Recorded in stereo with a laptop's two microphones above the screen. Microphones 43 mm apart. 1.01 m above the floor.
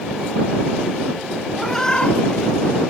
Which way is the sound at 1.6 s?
10° left (ahead or behind).